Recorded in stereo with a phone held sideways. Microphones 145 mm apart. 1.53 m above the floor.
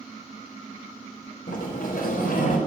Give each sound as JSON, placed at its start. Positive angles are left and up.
{"t": 1.5, "sound": "a sliding door", "side_deg": 75, "distance_m": 4.0}